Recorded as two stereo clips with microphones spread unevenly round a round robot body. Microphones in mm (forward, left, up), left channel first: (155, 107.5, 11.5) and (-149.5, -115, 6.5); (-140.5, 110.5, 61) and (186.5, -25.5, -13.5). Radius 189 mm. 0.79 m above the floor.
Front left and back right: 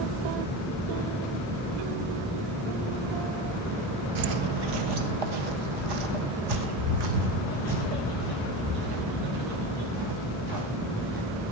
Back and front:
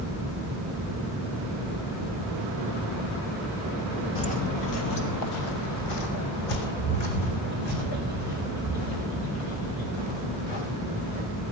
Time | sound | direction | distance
4.2 | footsteps | 140° right | 1.0 m